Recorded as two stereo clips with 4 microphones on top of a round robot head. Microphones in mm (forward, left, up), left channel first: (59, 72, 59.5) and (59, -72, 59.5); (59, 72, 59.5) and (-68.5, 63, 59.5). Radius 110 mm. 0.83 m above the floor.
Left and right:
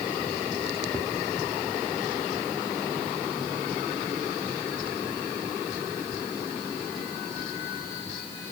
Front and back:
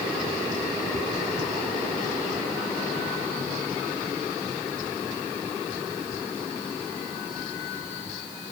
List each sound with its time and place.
Only background noise.